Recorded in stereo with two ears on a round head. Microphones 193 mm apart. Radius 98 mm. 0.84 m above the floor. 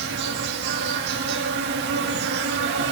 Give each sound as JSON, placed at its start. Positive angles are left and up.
{"t": 0.0, "sound": "an insect", "side_deg": -50, "distance_m": 2.0}